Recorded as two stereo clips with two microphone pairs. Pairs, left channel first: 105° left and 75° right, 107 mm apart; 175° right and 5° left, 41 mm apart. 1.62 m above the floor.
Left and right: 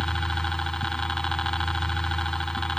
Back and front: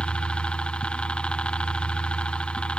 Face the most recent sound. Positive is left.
turn(degrees=180)